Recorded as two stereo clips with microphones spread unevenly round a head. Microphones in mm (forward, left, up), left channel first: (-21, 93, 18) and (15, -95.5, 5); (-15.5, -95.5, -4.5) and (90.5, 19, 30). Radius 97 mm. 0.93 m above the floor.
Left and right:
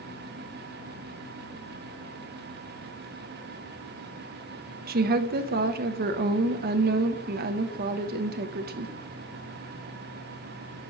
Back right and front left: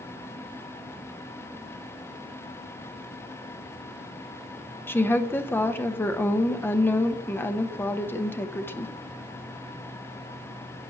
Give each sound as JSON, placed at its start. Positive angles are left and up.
{"t": 4.9, "sound": "a woman speaking", "azimuth_deg": -70, "distance_m": 0.8}